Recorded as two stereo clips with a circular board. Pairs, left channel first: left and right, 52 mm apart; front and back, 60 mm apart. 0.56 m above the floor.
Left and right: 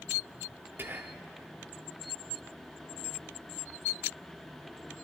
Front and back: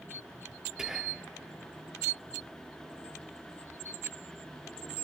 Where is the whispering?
105° right, 0.8 m.